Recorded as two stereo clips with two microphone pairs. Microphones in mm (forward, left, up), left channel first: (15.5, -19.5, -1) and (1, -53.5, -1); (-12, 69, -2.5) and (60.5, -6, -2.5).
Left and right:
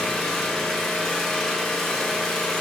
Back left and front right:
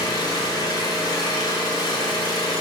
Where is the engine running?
150° left, 1.2 m.